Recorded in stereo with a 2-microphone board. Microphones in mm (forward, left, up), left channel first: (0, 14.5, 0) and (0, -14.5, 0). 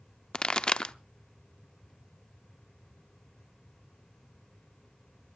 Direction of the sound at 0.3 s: 30° left (ahead or behind).